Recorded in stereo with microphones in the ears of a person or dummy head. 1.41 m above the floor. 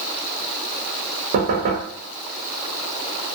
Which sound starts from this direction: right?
Knocking, at 1.3 s.